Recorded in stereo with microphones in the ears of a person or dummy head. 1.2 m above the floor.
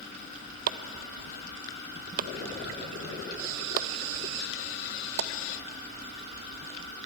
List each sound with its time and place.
0.7 s chopping: 45° right (ahead or behind), 0.7 m